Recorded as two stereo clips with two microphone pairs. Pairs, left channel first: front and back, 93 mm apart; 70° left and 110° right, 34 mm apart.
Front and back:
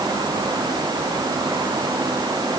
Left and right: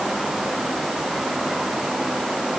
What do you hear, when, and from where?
Only background noise.